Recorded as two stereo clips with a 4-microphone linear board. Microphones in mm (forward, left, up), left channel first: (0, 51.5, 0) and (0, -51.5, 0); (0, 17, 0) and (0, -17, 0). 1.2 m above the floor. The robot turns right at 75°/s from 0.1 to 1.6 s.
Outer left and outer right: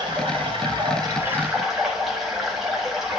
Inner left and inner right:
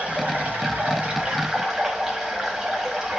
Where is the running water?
120° right, 1.5 m; by 3.2 s 5° right, 1.5 m.